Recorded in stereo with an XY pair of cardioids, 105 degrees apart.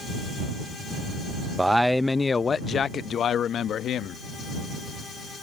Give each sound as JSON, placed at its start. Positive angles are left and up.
{"t": 1.6, "sound": "a man speaking", "azimuth_deg": -10}